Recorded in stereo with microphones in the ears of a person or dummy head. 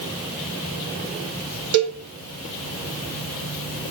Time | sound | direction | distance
1.7 | a cowbell | 75° right (ahead or behind) | 1.4 m